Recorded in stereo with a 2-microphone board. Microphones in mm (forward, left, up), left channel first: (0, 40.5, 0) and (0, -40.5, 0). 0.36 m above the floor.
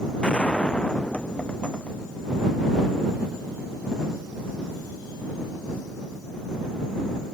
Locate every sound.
0.2 s a gunshot: 15° left (ahead or behind)